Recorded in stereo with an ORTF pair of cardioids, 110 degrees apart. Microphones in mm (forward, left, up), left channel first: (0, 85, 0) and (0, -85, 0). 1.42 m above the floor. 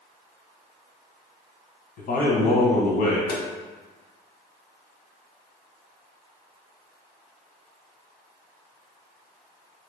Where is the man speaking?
60° left, 1.1 m.